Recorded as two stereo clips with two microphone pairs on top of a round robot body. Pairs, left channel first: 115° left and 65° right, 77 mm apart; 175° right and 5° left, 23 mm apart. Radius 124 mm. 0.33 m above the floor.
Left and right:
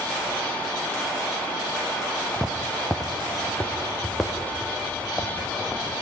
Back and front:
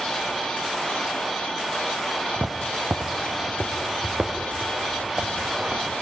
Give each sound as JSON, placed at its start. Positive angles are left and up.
{"t": 2.3, "sound": "footsteps", "azimuth_deg": 25, "distance_m": 0.9}